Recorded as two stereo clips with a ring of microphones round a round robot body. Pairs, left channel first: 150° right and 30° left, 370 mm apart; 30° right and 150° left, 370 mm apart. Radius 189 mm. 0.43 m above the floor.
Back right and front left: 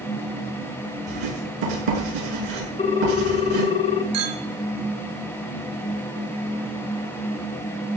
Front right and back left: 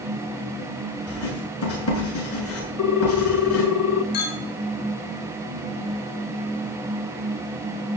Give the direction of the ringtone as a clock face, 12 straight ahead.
3 o'clock.